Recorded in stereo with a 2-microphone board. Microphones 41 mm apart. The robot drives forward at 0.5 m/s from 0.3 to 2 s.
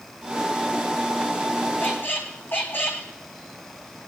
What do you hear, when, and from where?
1.8 s a squeak: 65° left (ahead or behind), 2 m; by 3.1 s 60° left (ahead or behind), 2 m